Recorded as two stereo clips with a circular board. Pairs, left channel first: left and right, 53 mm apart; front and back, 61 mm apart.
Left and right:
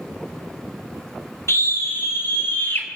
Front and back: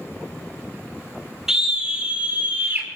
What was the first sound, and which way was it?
A scream, 100° left.